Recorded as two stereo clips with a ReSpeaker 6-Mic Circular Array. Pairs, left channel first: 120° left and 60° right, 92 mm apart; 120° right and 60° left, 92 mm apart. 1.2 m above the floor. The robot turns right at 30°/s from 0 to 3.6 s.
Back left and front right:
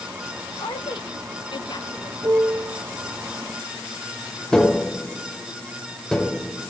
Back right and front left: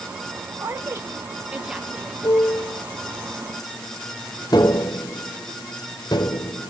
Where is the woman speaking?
105° left, 0.6 m; by 2.1 s 150° left, 0.6 m.